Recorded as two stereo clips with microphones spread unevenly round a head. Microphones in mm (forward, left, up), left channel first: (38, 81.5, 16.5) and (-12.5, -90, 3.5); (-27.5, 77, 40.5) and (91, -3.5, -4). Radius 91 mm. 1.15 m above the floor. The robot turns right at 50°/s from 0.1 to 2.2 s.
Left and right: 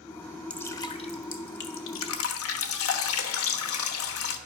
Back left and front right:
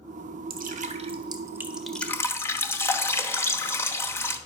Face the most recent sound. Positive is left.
turn(degrees=75)